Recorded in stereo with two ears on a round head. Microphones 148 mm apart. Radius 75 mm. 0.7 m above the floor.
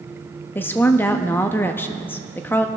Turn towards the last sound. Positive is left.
turn(degrees=10)  # may be behind; listen again after turning